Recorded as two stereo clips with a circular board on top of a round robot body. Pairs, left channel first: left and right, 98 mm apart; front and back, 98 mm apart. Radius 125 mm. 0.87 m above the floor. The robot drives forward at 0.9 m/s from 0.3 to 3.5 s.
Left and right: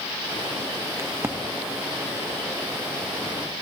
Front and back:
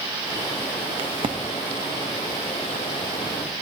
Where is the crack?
150° right, 1.1 m; by 1.4 s 160° right, 1.4 m.